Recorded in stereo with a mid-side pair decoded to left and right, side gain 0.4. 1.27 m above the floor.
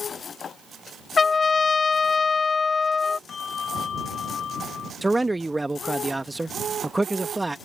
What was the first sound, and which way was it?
A trumpet, 40° left.